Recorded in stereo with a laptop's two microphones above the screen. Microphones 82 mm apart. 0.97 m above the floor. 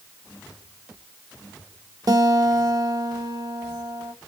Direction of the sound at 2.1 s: 55° right (ahead or behind).